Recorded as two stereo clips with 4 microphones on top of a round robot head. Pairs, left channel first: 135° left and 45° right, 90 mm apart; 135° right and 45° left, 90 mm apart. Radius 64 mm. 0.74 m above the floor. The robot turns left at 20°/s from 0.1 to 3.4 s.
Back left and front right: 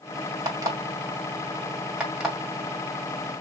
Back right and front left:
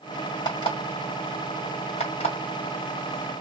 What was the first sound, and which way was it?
An alarm clock, 95° right.